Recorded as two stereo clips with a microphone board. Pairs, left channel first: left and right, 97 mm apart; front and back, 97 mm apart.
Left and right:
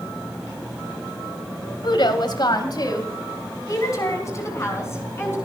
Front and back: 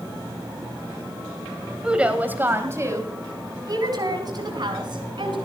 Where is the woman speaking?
100° left, 2 m; by 5.4 s 150° left, 4.5 m.